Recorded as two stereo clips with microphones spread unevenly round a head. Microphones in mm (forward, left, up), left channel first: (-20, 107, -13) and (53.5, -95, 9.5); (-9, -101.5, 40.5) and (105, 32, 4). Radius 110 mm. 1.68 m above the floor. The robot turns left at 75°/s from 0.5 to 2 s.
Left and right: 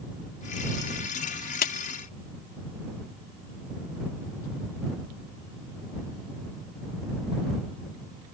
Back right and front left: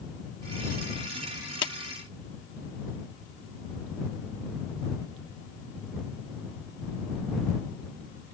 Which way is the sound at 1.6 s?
165° left.